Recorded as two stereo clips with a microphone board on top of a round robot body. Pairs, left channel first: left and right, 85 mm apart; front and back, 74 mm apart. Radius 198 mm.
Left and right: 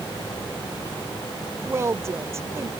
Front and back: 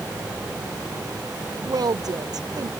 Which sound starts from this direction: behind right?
A woman speaking, at 1.6 s.